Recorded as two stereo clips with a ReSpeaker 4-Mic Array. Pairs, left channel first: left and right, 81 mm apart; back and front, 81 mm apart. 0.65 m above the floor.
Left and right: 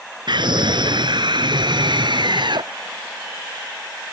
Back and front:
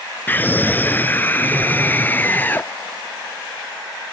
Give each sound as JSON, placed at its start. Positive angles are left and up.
{"t": 0.3, "sound": "a scream", "azimuth_deg": -115}